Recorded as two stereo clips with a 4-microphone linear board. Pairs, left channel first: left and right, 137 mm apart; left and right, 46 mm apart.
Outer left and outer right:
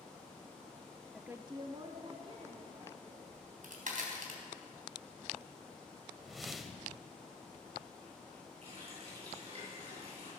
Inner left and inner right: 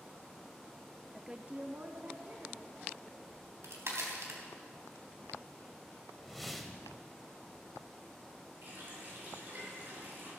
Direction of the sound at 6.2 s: Centre (ahead or behind).